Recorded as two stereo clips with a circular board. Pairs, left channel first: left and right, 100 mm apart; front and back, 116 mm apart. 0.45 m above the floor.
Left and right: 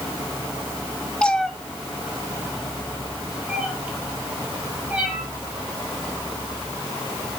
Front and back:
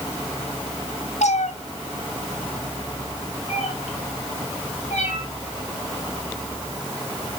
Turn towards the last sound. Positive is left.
turn(degrees=-10)